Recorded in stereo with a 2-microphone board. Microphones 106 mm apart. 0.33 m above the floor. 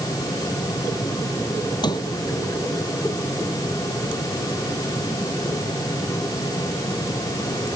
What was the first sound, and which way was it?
A sliding door, 40° left (ahead or behind).